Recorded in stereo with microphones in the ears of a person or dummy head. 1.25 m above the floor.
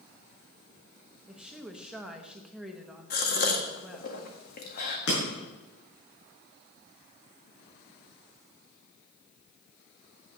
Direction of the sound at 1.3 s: 5° right (ahead or behind).